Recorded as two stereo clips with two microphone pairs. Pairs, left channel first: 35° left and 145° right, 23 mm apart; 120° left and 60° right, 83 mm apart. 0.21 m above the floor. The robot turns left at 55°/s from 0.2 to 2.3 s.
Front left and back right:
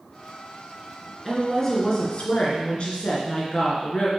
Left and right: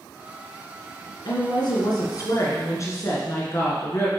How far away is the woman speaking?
About 2.5 m.